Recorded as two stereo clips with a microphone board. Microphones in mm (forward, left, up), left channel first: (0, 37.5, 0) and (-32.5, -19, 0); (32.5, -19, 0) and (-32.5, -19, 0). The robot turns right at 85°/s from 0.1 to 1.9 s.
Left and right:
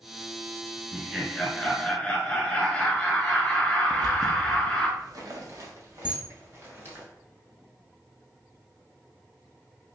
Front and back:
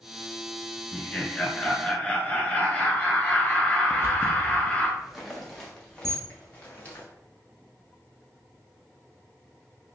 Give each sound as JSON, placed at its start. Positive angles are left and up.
{"t": 0.9, "sound": "laughter", "azimuth_deg": -70, "distance_m": 1.1}
{"t": 3.9, "sound": "footsteps", "azimuth_deg": -125, "distance_m": 1.0}
{"t": 6.0, "sound": "a camera shutter", "azimuth_deg": 175, "distance_m": 0.9}